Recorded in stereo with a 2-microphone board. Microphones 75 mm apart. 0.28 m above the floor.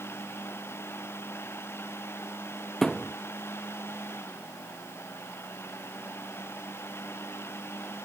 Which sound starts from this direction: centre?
A thud, at 2.8 s.